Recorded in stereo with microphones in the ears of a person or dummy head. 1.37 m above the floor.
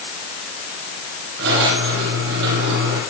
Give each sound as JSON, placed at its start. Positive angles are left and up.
{"t": 1.4, "sound": "a squeak", "side_deg": -70, "distance_m": 6.0}